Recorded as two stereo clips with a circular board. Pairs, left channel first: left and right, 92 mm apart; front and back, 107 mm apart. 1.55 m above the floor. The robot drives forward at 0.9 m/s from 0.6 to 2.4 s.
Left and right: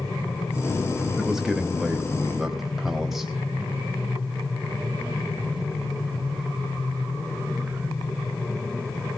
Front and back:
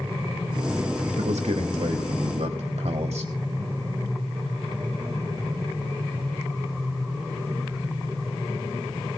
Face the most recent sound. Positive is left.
turn(degrees=-175)